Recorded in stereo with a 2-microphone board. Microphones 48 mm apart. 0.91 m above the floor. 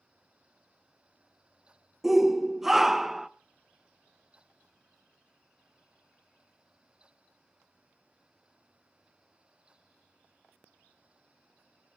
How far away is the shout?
About 0.8 m.